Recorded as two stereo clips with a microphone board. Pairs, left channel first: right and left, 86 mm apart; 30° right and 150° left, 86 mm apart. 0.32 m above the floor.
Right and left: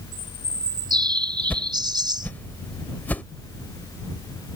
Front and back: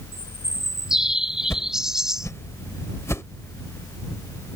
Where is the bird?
65° left.